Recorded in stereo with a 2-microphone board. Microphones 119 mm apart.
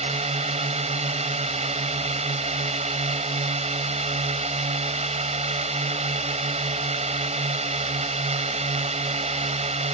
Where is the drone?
60° right (ahead or behind).